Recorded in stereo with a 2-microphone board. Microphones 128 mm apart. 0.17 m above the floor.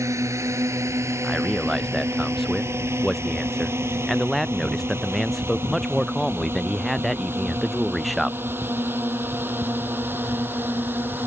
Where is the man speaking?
Centre (ahead or behind).